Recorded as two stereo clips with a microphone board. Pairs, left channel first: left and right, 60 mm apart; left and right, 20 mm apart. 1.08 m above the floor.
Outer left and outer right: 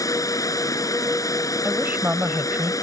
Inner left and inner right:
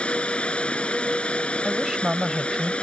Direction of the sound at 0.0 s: 75° left (ahead or behind).